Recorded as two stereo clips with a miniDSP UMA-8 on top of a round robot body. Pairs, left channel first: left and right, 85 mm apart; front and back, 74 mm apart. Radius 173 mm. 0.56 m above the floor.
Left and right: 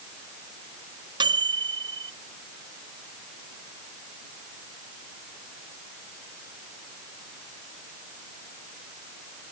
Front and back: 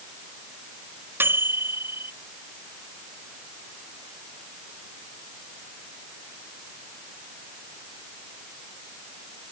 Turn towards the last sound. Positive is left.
turn(degrees=-120)